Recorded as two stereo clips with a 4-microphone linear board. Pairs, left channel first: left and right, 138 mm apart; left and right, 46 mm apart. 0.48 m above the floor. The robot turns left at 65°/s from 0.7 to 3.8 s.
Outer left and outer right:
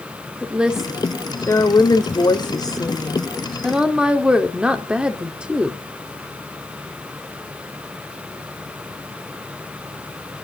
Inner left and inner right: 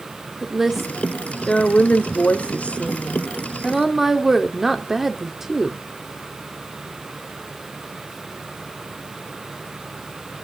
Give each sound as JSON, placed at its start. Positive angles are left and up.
{"t": 0.4, "sound": "a woman speaking", "azimuth_deg": -170, "distance_m": 1.2}